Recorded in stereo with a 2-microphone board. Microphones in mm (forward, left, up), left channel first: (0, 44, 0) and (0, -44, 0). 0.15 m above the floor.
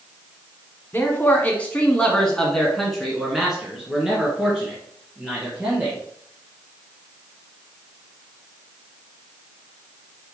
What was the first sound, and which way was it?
A man speaking, 25° left (ahead or behind).